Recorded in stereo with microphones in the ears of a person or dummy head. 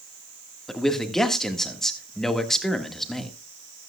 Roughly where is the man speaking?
Centre.